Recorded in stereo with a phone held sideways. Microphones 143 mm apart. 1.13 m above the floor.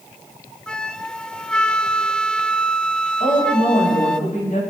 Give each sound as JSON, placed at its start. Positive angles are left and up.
{"t": 0.7, "sound": "a flute", "side_deg": 5, "distance_m": 0.6}
{"t": 3.2, "sound": "a woman speaking", "side_deg": 70, "distance_m": 8.5}